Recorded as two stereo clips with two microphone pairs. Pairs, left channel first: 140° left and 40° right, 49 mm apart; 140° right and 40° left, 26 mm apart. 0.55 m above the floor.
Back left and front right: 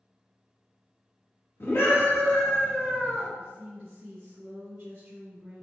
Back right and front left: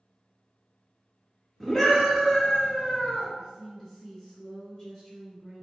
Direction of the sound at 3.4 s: 65° right.